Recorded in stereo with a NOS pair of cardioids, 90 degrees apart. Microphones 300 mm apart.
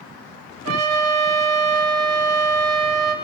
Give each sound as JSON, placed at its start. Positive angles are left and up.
{"t": 0.7, "sound": "a trumpet", "azimuth_deg": -60, "distance_m": 2.0}